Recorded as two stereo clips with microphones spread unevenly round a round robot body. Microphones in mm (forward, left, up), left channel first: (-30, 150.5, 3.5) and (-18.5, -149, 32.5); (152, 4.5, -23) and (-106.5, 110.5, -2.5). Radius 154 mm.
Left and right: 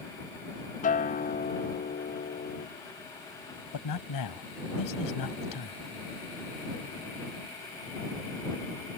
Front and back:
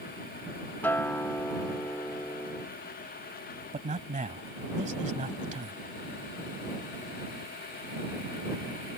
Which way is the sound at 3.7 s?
95° left.